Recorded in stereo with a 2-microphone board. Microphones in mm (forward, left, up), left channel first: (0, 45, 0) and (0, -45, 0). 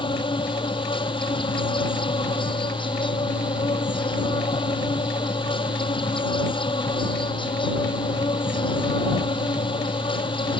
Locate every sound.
0.0 s an insect: 70° left (ahead or behind)